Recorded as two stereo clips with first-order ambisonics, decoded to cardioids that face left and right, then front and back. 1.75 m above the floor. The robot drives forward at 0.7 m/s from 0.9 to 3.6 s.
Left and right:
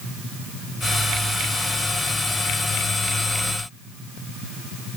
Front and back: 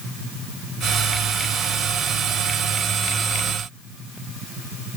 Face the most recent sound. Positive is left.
No sound to turn to.